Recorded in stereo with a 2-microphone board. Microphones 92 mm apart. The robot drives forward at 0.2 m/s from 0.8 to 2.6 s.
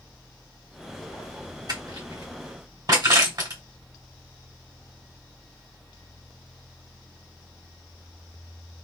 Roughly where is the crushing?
Right.